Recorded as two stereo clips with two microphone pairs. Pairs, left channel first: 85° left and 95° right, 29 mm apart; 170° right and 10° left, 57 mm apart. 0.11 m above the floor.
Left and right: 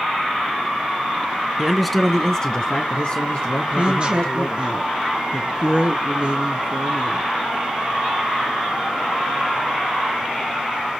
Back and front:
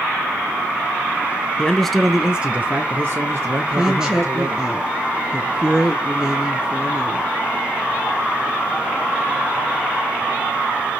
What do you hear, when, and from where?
1.6 s a man speaking: 145° right, 1.1 m; by 4.7 s 45° left, 3 m
3.7 s a woman speaking: 65° right, 1.8 m